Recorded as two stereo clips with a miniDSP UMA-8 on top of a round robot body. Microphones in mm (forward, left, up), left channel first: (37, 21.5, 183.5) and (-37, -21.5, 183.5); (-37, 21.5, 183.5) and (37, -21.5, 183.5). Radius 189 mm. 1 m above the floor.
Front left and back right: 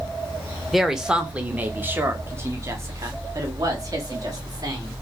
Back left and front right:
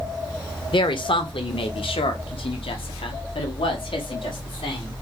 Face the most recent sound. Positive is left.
turn(degrees=165)